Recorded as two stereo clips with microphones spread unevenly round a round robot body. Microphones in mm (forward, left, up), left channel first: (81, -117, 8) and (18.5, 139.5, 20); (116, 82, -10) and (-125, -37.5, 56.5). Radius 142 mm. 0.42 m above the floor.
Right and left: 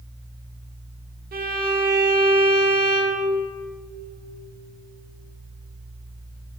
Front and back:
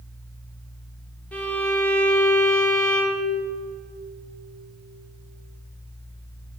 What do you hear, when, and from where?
1.3 s a violin: 80° left, 1.2 m